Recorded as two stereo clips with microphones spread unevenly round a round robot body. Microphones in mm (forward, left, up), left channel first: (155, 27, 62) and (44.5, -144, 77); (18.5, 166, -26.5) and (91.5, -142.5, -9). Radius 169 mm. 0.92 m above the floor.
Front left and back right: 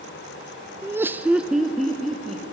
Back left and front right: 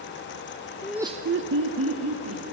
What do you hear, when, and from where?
0.8 s laughter: 160° left, 0.7 m; by 2.4 s 30° right, 2 m